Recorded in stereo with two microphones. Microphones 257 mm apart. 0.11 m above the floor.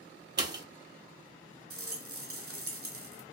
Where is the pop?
45° right (ahead or behind), 0.6 m.